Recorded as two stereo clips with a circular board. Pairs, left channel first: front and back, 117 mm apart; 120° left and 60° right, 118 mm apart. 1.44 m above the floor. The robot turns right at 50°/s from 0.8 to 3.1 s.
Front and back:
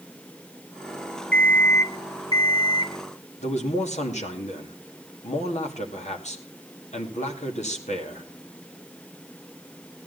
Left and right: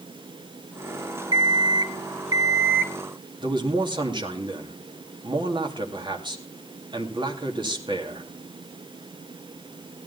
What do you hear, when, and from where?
1.3 s an alarm clock: 75° right, 0.7 m; by 2.9 s 10° left, 0.7 m
3.4 s a man speaking: 10° right, 2.5 m